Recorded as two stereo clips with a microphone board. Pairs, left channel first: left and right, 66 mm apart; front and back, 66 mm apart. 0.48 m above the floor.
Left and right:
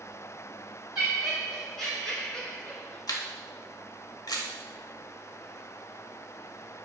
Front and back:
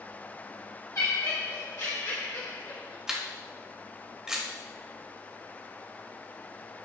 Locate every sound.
0.9 s laughter: 10° right, 1.8 m; by 3.0 s 35° left, 1.9 m
3.1 s a camera shutter: 100° left, 0.7 m